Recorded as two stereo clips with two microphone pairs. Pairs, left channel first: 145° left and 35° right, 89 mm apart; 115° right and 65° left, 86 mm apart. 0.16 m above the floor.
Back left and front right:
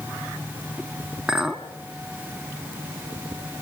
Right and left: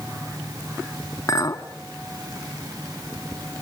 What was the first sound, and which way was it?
A clink, 110° right.